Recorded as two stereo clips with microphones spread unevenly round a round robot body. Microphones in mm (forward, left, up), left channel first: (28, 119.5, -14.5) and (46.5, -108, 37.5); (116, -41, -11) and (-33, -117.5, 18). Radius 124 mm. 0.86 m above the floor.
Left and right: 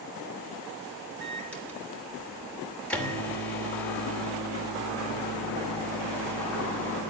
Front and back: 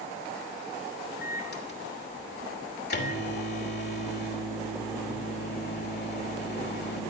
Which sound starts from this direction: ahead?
A microwave, at 1.2 s.